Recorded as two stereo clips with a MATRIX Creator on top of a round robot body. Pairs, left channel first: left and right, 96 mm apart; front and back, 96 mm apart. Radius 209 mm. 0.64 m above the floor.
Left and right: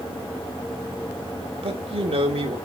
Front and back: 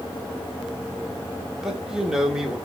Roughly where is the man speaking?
Right.